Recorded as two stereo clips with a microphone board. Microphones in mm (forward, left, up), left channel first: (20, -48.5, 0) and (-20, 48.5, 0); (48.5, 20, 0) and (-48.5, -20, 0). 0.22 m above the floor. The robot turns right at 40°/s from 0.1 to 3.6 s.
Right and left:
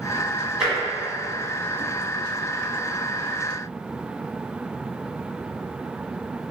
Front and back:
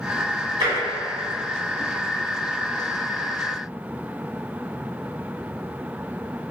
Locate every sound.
0.6 s tapping: 165° right, 1.3 m; by 0.8 s 160° right, 1.3 m